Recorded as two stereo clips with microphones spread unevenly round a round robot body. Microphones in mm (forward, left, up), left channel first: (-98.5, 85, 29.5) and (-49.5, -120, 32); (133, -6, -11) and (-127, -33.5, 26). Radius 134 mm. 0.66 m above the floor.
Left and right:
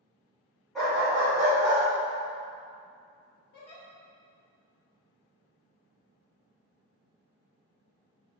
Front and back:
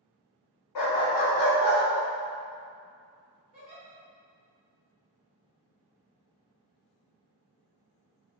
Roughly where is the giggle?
Behind left.